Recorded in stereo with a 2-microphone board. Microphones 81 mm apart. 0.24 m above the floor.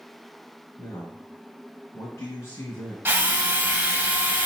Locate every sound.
0.8 s a man speaking: 35° left (ahead or behind), 1.4 m
3.0 s a drill: 30° right (ahead or behind), 0.7 m